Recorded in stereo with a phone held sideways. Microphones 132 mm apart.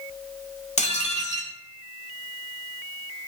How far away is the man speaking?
I don't hear a man speaking.